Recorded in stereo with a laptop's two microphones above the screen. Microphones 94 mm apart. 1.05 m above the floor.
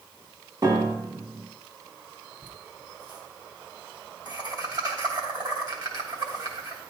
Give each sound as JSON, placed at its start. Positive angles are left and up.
{"t": 0.6, "sound": "a piano", "side_deg": -45, "distance_m": 1.5}
{"t": 2.4, "sound": "laughter", "side_deg": -45, "distance_m": 3.0}